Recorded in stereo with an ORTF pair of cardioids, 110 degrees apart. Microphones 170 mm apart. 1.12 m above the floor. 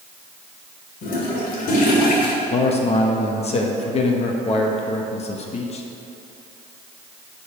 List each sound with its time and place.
1.0 s a toilet flushing: 60° left, 1.9 m
2.5 s a man speaking: 40° left, 1.2 m